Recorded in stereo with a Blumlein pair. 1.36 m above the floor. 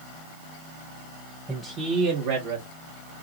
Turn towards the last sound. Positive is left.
turn(degrees=-75)